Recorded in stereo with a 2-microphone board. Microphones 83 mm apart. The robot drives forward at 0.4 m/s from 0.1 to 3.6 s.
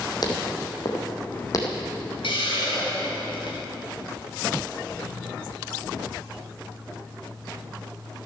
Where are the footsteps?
55° left (ahead or behind), 2.5 m; by 1.8 s 45° left (ahead or behind), 2.5 m.